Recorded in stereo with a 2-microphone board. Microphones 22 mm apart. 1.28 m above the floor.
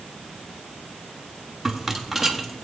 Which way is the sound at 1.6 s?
5° right (ahead or behind).